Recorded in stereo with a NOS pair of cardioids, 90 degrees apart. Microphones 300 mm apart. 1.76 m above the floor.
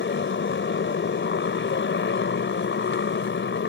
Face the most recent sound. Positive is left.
turn(degrees=40)